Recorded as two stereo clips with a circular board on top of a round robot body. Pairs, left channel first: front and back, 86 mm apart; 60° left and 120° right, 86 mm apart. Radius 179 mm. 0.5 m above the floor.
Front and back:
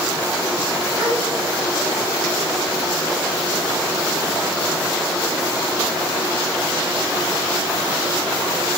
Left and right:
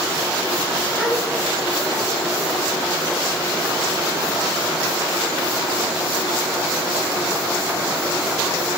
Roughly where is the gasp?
Behind left.